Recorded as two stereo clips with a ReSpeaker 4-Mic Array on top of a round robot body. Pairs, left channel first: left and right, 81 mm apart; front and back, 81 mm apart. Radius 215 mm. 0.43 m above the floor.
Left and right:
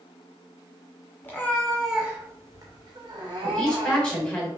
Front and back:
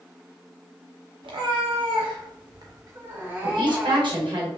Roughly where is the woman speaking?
Behind.